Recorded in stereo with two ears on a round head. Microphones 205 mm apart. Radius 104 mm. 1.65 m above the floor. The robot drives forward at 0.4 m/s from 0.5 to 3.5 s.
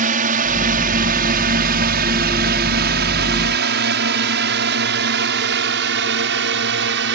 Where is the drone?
35° right (ahead or behind); by 7.2 s 50° right (ahead or behind).